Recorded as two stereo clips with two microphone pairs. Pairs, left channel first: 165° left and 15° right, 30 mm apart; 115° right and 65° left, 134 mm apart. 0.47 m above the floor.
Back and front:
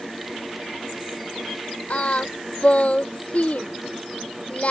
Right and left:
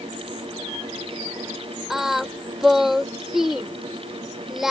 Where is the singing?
155° left.